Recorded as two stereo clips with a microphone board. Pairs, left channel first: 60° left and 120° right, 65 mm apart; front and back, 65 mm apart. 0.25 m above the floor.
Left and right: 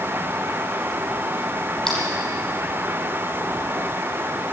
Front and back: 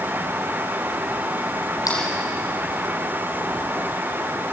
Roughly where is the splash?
Ahead.